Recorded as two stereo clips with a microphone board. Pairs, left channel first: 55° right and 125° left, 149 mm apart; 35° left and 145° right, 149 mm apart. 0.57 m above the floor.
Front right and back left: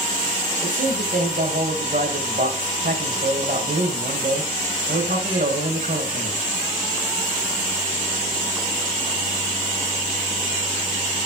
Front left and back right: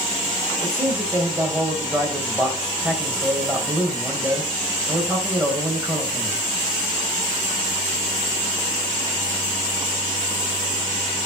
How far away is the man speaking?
About 3 m.